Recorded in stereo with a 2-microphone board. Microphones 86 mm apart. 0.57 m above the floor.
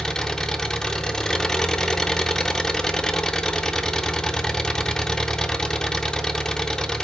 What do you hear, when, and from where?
0.0 s an engine running: 5° left (ahead or behind), 0.9 m